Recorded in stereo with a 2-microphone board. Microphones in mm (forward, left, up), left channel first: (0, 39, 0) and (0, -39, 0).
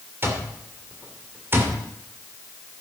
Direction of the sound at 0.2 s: 35° right (ahead or behind).